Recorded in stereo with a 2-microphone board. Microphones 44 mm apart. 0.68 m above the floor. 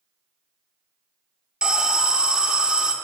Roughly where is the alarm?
Right.